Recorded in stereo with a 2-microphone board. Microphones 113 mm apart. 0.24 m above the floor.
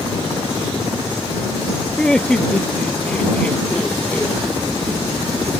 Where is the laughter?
5° left (ahead or behind); by 4.4 s 10° left (ahead or behind).